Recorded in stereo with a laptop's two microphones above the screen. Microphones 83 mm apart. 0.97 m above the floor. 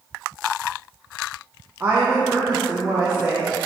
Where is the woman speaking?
20° right (ahead or behind), 0.5 m.